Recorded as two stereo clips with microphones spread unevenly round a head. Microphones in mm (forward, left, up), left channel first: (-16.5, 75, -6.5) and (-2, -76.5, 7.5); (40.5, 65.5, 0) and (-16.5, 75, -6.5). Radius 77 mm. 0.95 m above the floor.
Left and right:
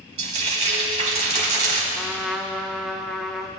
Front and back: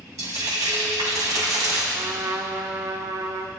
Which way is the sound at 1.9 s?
170° right.